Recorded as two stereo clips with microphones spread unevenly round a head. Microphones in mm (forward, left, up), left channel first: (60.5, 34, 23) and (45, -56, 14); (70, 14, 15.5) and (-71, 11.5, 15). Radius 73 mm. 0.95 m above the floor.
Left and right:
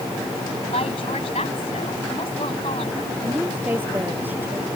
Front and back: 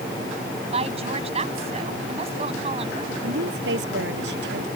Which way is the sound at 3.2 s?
175° right.